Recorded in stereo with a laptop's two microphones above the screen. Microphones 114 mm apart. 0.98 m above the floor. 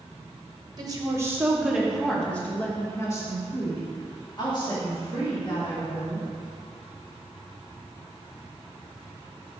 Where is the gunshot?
No gunshot in this recording.